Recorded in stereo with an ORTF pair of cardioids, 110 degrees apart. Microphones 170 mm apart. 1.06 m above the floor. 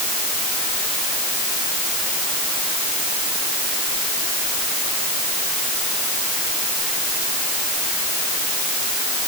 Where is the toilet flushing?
No toilet flushing in this recording.